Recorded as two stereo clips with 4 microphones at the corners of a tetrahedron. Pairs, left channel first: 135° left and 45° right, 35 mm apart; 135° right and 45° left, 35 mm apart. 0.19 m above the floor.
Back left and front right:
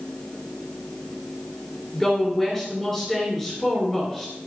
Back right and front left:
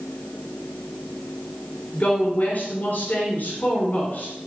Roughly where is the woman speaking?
Behind right.